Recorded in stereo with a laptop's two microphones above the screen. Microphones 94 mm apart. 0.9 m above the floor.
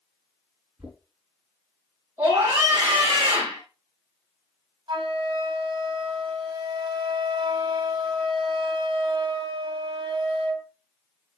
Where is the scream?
25° right (ahead or behind), 4.5 m.